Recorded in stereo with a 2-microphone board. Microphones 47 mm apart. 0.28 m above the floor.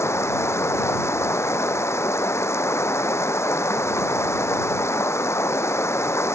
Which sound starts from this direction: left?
Running water, at 0.0 s.